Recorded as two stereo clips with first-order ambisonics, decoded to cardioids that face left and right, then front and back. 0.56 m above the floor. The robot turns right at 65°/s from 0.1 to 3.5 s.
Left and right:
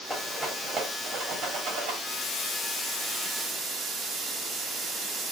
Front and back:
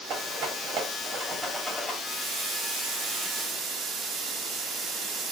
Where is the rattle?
160° left, 1.0 m; by 1.9 s 80° right, 1.0 m.